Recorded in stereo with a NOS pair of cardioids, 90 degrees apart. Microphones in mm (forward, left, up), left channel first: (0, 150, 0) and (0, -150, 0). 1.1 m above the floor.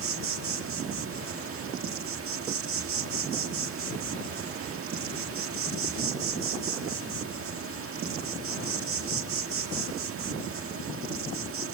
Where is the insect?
45° right, 1.7 m.